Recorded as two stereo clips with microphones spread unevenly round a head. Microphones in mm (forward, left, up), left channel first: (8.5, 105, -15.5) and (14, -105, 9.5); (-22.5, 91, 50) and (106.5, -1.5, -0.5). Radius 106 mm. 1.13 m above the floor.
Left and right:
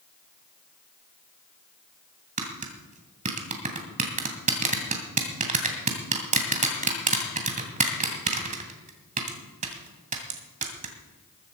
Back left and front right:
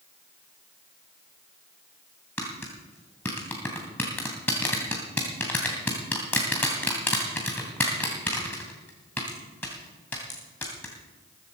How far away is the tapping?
About 2.5 m.